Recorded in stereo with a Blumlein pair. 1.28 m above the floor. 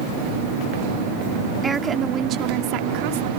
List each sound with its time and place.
1.6 s a woman speaking: 15° right; by 3.3 s 50° right